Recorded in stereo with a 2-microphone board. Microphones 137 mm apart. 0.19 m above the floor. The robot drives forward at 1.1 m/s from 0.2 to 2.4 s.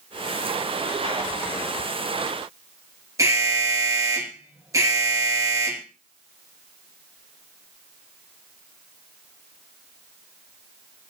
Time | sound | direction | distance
3.2 | an alarm | 25° right (ahead or behind) | 3 m